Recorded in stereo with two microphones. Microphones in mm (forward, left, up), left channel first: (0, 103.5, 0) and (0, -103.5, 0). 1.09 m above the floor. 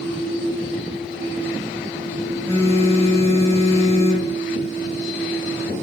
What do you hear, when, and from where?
2.5 s a phone buzzing: 15° left (ahead or behind), 1.0 m